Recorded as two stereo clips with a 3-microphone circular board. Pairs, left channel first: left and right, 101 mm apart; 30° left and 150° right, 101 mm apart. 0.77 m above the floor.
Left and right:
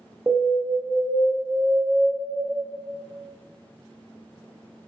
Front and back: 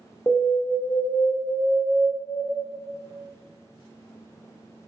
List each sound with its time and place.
0.3 s an alarm: 20° right, 0.6 m